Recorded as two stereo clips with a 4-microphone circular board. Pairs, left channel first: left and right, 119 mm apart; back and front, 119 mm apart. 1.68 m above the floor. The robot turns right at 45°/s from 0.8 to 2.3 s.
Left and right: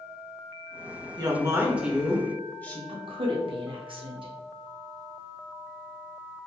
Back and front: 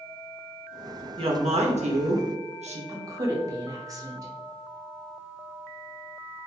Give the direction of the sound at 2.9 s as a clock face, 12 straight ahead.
2 o'clock.